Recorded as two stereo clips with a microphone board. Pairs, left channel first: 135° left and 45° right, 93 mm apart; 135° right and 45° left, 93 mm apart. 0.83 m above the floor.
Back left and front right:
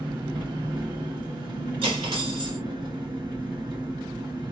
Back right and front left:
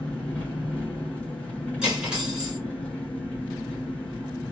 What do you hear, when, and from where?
0.0 s an engine running: 60° right, 1.6 m
1.8 s cutlery clinking: 35° right, 1.6 m